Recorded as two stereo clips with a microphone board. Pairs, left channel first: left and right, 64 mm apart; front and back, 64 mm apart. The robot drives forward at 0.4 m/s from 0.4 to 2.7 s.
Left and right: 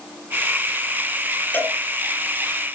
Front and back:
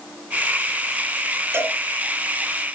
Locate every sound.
1.5 s a cowbell: 150° left, 2.5 m